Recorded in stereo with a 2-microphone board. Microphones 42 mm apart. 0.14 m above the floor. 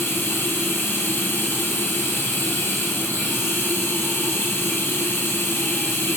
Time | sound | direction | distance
0.0 | running water | 55° left (ahead or behind) | 2.5 m